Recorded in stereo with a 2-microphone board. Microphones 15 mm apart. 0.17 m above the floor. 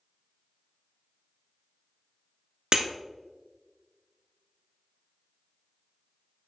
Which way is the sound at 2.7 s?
60° right (ahead or behind).